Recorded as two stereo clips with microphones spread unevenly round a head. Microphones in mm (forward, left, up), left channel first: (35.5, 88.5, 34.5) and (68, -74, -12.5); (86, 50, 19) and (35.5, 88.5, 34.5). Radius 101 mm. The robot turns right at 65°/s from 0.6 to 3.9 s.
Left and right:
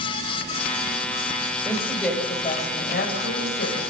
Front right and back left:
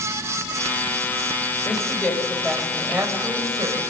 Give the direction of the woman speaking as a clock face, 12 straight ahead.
12 o'clock.